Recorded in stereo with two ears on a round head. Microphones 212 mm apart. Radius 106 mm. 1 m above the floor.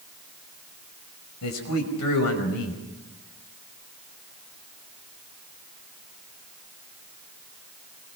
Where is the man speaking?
80° left, 5.5 m.